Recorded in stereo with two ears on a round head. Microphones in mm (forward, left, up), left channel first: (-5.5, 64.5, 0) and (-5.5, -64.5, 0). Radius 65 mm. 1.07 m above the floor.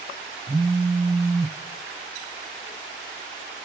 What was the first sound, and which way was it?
A phone buzzing, 5° right (ahead or behind).